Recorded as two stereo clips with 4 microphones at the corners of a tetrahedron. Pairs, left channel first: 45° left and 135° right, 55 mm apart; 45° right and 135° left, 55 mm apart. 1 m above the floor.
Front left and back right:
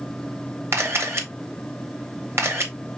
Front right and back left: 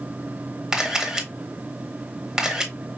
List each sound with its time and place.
0.7 s a camera shutter: 150° right, 1.0 m